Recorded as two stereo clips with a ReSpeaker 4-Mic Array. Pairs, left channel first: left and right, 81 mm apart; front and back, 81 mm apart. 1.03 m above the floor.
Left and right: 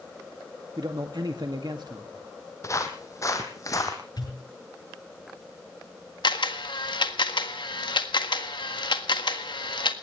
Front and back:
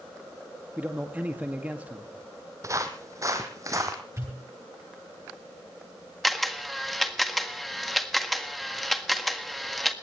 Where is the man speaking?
110° right, 2 m.